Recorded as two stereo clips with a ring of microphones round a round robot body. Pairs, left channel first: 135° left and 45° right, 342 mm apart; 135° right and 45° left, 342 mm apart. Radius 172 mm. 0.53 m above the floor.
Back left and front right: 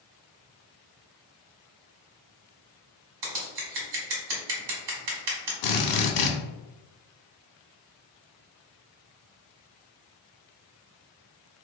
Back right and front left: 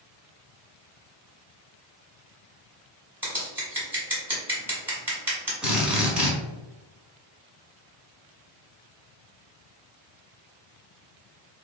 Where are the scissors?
40° right, 1.5 m.